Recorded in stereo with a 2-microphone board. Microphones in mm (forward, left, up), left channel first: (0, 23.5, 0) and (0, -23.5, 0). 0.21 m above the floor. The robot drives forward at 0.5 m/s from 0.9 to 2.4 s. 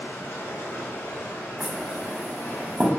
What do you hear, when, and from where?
0.0 s running water: 85° left, 1.7 m; by 3.0 s 60° left (ahead or behind), 2.0 m
1.6 s knocking: 30° right (ahead or behind), 0.8 m; by 2.9 s 35° right (ahead or behind), 0.7 m